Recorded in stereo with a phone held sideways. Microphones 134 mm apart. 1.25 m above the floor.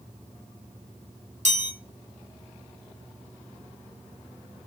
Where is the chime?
60° right (ahead or behind), 8 m.